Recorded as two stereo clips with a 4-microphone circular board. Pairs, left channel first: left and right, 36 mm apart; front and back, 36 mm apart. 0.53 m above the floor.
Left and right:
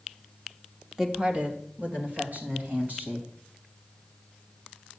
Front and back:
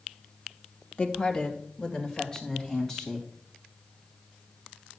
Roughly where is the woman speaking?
Ahead right.